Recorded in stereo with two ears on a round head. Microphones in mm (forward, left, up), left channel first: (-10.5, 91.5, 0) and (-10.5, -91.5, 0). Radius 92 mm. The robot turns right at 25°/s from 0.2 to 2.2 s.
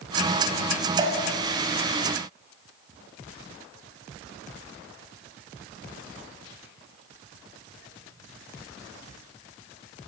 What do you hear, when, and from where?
1.0 s dripping: 25° right (ahead or behind), 3.5 m